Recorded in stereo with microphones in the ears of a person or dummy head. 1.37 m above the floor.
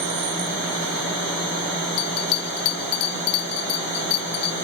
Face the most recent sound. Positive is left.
turn(degrees=55)  # may be behind; listen again after turning